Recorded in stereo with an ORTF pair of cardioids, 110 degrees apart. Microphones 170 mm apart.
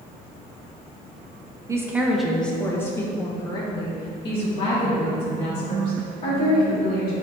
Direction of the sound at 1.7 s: 20° right.